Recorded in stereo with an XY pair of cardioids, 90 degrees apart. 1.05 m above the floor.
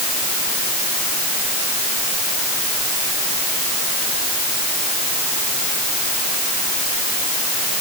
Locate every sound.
Only background noise.